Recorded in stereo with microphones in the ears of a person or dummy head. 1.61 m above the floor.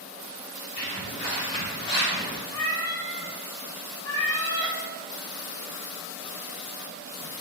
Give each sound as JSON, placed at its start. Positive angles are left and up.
{"t": 0.8, "sound": "footsteps", "side_deg": 35, "distance_m": 1.9}
{"t": 2.5, "sound": "a cat meowing", "side_deg": 15, "distance_m": 0.9}